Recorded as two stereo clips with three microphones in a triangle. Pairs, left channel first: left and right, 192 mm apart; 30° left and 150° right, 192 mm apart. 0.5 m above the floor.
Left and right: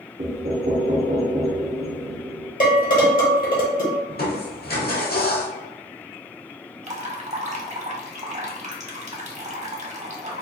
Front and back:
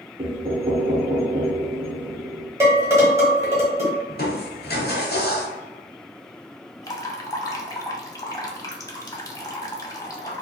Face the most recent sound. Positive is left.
turn(degrees=-45)